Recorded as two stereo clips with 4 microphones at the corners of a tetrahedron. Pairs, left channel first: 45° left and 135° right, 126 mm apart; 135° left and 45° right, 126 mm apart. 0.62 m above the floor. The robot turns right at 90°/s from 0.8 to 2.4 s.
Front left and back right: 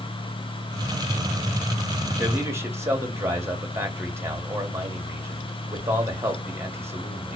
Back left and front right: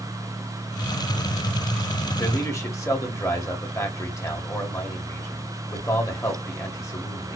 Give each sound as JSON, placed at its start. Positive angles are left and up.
{"t": 2.2, "sound": "a man speaking", "azimuth_deg": 155, "distance_m": 1.4}